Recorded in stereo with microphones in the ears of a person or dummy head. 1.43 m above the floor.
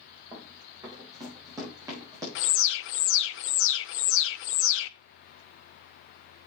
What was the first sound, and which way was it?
Running footsteps, 15° right (ahead or behind).